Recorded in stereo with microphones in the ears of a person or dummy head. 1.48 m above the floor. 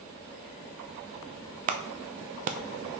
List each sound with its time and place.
1.7 s a clap: 40° right (ahead or behind), 0.5 m